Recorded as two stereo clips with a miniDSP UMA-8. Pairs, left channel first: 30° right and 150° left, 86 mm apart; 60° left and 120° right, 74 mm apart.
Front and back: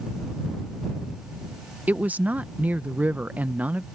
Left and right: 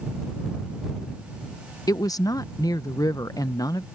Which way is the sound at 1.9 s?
80° left.